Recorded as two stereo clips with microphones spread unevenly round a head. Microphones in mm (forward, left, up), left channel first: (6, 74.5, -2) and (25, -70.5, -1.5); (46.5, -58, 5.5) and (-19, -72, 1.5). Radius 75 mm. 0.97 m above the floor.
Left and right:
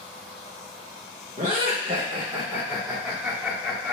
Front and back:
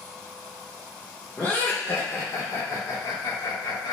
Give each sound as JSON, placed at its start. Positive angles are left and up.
{"t": 1.4, "sound": "laughter", "azimuth_deg": -60, "distance_m": 1.2}